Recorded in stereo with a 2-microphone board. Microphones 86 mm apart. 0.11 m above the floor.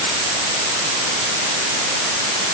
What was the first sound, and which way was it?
Only background noise.